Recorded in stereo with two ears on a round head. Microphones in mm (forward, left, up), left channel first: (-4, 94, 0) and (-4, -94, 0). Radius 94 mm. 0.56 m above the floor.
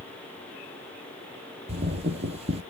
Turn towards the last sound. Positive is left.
turn(degrees=-30)  # may be behind; listen again after turning